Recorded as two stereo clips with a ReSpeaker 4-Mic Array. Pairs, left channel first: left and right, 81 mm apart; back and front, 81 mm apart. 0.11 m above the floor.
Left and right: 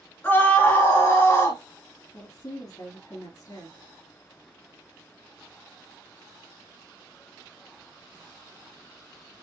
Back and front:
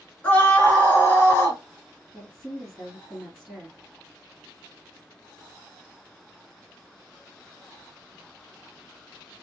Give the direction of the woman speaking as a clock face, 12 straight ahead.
9 o'clock.